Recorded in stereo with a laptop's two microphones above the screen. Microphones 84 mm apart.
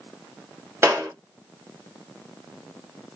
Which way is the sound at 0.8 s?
30° right (ahead or behind).